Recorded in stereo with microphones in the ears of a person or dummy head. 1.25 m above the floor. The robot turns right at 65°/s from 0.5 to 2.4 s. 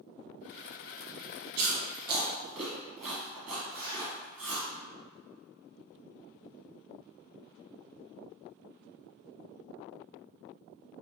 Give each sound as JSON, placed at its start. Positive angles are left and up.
{"t": 1.6, "sound": "chewing", "side_deg": -55, "distance_m": 1.3}
{"t": 3.7, "sound": "a zipper", "side_deg": -25, "distance_m": 1.8}